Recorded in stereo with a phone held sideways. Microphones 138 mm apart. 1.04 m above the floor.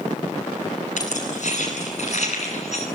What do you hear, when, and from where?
1.0 s keys jangling: 60° left (ahead or behind), 9 m; by 2.9 s 55° left (ahead or behind), 9 m